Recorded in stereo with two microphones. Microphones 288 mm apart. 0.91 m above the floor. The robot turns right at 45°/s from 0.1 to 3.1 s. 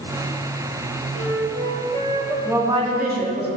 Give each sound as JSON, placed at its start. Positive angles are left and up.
{"t": 1.1, "sound": "a flute", "azimuth_deg": -55, "distance_m": 1.6}
{"t": 2.5, "sound": "a woman speaking", "side_deg": -5, "distance_m": 2.0}